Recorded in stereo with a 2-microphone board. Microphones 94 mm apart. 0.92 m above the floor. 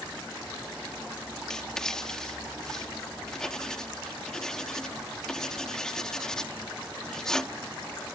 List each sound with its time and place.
1.5 s writing: 5° left (ahead or behind)